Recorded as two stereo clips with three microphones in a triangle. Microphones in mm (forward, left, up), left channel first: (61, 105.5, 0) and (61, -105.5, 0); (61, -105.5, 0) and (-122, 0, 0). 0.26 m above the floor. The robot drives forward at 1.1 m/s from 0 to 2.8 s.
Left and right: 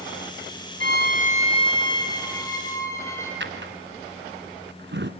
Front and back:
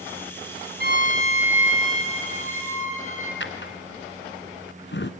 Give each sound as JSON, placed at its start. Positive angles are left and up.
{"t": 0.8, "sound": "a violin", "azimuth_deg": 115, "distance_m": 0.7}
{"t": 3.4, "sound": "a drawer", "azimuth_deg": -60, "distance_m": 1.3}